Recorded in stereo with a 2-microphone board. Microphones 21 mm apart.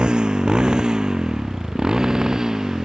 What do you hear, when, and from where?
0.0 s a motorcycle: 40° right (ahead or behind); by 2.9 s 25° right (ahead or behind)